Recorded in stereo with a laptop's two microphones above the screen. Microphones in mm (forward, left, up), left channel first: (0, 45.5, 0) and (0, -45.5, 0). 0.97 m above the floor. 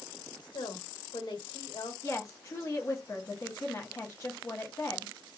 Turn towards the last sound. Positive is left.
turn(degrees=35)  # may be behind; listen again after turning